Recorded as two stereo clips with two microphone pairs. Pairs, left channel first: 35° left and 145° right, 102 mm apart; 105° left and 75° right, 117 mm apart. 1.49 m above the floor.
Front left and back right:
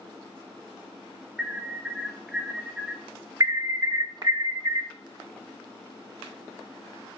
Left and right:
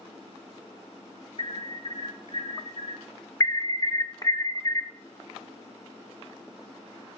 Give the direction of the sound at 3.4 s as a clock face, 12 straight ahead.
7 o'clock.